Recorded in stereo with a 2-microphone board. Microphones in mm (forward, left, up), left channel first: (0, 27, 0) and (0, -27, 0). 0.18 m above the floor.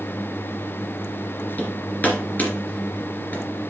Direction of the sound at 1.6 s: 30° left (ahead or behind).